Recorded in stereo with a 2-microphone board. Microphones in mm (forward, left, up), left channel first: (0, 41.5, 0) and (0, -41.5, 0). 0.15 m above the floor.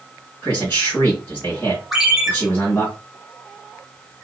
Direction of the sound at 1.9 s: Centre (ahead or behind).